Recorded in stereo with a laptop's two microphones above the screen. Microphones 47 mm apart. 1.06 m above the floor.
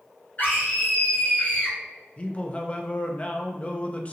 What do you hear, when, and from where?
0.4 s a scream: 40° left (ahead or behind), 1.3 m
2.2 s a man speaking: 25° left (ahead or behind), 0.6 m